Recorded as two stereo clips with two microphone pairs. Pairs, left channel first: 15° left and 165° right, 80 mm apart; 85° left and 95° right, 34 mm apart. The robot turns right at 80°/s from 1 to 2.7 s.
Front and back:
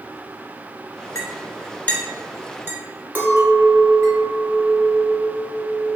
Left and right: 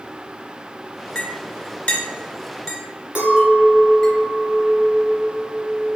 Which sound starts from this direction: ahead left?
A clink, at 1.1 s.